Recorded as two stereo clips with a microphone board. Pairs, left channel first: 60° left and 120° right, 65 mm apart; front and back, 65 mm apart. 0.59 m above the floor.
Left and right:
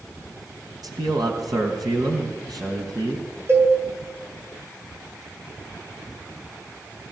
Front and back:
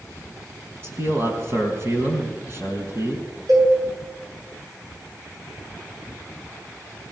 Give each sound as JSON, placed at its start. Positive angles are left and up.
{"t": 0.8, "sound": "a man speaking", "azimuth_deg": -130, "distance_m": 4.0}
{"t": 3.5, "sound": "a cowbell", "azimuth_deg": -170, "distance_m": 8.0}